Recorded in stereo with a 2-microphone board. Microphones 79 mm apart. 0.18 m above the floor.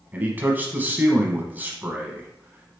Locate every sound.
0.1 s a man speaking: 25° right (ahead or behind), 1.1 m